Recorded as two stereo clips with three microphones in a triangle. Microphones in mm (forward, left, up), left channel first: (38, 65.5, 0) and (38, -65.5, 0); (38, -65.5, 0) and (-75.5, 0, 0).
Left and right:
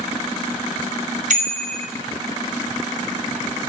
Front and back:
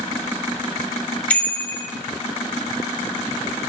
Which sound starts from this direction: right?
A bicycle bell, at 1.3 s.